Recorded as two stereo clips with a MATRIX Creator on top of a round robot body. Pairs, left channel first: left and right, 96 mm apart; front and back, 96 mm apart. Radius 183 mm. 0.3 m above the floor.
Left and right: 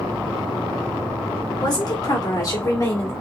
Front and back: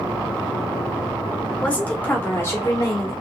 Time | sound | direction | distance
1.6 | a woman speaking | 75° left | 1.9 m